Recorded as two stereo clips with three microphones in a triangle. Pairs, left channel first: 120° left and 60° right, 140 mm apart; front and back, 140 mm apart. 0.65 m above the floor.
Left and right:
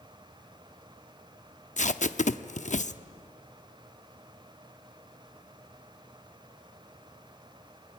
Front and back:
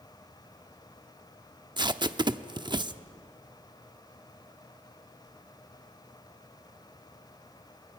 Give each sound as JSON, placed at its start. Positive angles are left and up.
{"t": 1.8, "sound": "tape being pulled", "azimuth_deg": 130, "distance_m": 0.7}